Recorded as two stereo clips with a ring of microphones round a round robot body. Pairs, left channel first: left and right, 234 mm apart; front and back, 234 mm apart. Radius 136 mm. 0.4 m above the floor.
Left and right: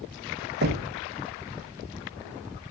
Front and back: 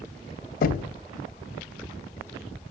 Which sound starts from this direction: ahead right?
Knocking, at 0.6 s.